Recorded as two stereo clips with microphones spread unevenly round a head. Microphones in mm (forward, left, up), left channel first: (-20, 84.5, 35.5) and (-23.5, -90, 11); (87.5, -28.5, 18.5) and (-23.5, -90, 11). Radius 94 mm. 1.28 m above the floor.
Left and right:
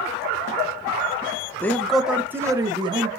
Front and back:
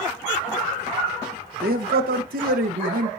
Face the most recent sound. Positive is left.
turn(degrees=-150)